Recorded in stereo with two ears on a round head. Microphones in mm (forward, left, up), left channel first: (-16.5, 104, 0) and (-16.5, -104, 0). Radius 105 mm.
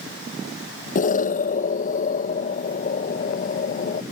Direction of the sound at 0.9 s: 35° left (ahead or behind).